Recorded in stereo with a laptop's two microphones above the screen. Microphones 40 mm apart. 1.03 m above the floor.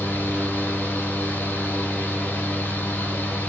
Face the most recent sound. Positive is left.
turn(degrees=60)  # may be behind; listen again after turning